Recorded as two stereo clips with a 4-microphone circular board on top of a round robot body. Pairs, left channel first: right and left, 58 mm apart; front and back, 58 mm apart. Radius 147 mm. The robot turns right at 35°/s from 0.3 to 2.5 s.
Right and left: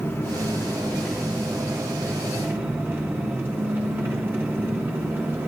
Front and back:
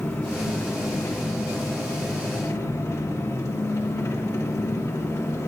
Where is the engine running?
40° right, 2 m; by 5.5 s 35° left, 2 m.